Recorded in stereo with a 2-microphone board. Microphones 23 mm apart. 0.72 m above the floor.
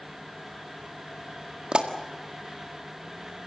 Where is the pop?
50° right (ahead or behind), 1.8 m.